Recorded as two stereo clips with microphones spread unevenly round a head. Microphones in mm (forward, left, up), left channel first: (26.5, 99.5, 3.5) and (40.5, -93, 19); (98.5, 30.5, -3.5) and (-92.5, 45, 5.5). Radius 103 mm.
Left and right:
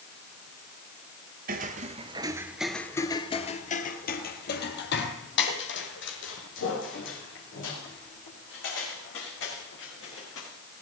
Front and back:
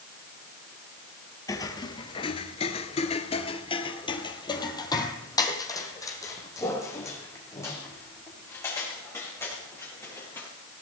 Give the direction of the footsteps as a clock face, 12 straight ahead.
3 o'clock.